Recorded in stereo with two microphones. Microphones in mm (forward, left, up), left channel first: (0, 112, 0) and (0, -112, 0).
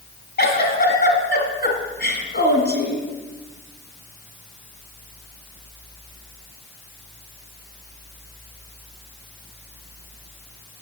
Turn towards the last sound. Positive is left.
turn(degrees=45)  # may be behind; listen again after turning